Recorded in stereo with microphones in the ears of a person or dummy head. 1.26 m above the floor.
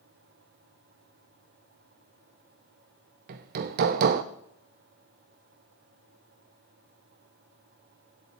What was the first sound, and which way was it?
Hammering, 50° right (ahead or behind).